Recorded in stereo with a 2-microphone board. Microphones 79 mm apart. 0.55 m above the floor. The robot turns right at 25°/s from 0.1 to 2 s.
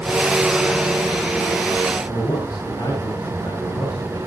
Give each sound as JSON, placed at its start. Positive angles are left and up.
{"t": 2.1, "sound": "a man speaking", "side_deg": 65, "distance_m": 9.0}